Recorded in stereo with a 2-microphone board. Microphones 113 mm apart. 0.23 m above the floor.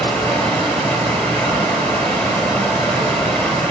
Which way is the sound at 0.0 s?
10° left (ahead or behind).